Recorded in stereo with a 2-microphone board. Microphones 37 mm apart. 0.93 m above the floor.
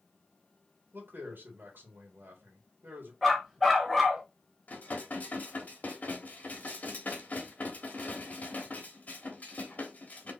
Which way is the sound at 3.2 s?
Centre (ahead or behind).